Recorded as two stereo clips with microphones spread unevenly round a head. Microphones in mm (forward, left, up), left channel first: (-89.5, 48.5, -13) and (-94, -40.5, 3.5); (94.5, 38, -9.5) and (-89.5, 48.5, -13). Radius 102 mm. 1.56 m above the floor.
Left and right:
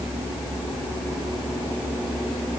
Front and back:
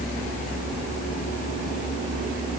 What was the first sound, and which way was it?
Only background noise.